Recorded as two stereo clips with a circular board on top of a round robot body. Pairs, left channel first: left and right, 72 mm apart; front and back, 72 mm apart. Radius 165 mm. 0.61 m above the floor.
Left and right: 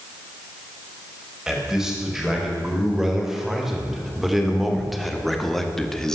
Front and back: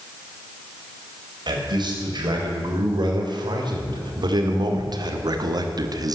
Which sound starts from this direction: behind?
A man speaking, at 1.5 s.